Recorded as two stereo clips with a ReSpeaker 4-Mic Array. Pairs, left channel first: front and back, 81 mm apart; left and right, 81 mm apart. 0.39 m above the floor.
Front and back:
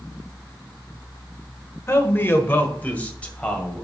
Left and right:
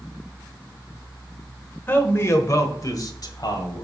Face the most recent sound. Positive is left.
turn(degrees=75)